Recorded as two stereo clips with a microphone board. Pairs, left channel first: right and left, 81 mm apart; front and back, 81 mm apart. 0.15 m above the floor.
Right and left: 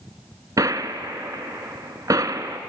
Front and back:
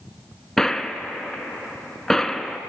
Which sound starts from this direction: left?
A gunshot, at 0.6 s.